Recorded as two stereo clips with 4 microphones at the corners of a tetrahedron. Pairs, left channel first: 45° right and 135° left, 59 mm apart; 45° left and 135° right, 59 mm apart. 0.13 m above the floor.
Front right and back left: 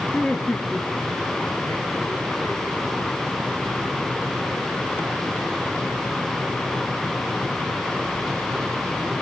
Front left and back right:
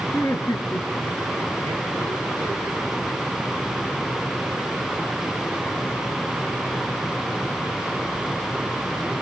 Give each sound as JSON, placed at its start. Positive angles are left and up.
{"t": 0.1, "sound": "laughter", "azimuth_deg": 25, "distance_m": 2.5}